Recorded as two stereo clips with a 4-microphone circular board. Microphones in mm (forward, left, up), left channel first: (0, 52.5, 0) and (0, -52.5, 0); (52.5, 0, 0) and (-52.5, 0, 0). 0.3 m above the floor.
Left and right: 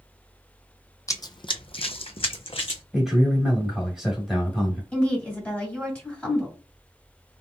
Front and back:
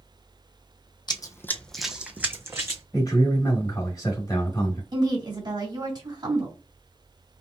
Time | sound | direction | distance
1.1 | running footsteps | 35° left | 0.5 m
2.9 | a man speaking | 5° right | 1.5 m
4.9 | a woman speaking | 165° left | 2.0 m